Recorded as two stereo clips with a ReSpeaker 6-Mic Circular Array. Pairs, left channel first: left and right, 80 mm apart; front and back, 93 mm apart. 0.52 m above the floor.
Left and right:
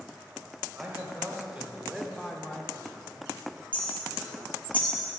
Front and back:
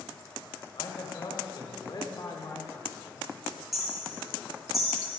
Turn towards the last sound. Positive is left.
turn(degrees=95)